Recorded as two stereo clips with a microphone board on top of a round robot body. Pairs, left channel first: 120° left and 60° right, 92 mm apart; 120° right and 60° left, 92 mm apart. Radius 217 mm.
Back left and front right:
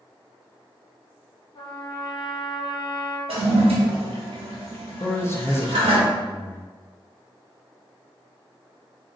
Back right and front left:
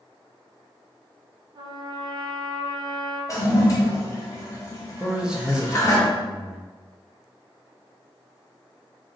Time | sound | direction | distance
1.6 | a trumpet | 95° left | 0.9 m
3.3 | a toilet flushing | 65° right | 0.9 m
5.0 | a man speaking | 130° left | 0.9 m